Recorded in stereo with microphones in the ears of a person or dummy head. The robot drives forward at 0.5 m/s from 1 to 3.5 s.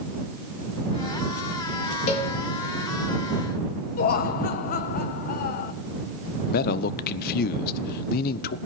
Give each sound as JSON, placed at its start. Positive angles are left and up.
{"t": 2.1, "sound": "a cowbell", "side_deg": 35, "distance_m": 3.5}
{"t": 4.0, "sound": "laughter", "side_deg": 50, "distance_m": 1.3}
{"t": 6.5, "sound": "a man speaking", "side_deg": 50, "distance_m": 0.7}